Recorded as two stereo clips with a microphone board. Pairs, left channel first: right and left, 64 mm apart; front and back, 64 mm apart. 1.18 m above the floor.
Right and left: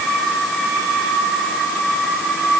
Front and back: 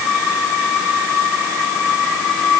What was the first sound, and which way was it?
Only background noise.